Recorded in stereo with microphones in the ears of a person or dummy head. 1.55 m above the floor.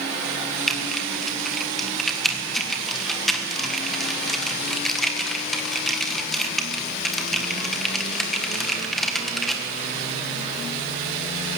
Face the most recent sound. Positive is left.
turn(degrees=0)  # may be behind; listen again after turning